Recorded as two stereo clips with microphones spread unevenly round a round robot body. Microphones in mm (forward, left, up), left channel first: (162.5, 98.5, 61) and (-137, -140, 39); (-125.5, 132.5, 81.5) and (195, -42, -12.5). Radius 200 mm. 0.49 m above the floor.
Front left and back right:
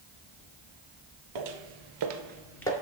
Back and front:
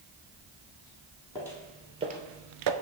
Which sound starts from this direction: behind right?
Footsteps, at 1.4 s.